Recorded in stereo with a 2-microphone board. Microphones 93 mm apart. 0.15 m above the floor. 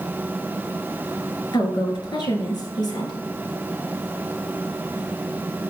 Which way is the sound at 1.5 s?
50° left (ahead or behind).